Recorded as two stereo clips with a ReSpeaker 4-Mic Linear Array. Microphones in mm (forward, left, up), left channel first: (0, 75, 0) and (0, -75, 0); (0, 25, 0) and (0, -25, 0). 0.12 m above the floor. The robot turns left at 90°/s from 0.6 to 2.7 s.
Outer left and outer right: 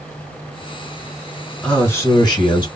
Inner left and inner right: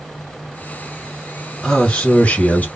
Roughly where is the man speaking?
Behind.